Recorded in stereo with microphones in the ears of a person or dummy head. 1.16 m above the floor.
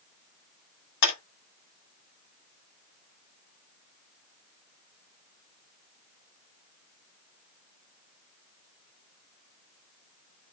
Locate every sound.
1.0 s a clap: 55° left (ahead or behind), 2.5 m